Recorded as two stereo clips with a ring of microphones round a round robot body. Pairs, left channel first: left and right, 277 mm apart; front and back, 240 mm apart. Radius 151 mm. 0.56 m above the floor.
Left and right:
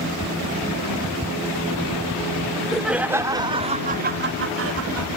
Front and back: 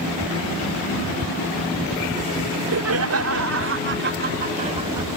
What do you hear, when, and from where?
2.5 s laughter: 175° left; by 5.1 s 105° right